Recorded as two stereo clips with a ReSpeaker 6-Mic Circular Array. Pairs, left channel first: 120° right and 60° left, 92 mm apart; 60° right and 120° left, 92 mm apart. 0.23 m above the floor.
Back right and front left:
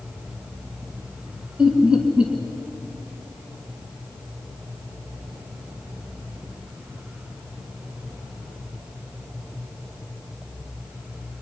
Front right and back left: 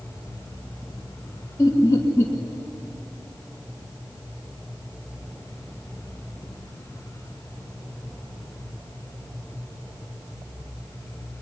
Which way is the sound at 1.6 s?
15° right.